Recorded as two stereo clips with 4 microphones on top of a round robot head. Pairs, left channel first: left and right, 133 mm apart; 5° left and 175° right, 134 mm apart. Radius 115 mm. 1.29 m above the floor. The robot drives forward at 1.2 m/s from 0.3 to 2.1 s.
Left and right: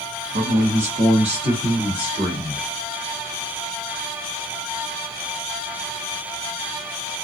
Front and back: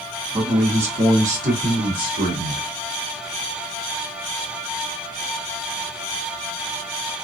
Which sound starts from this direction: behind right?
A man speaking, at 0.3 s.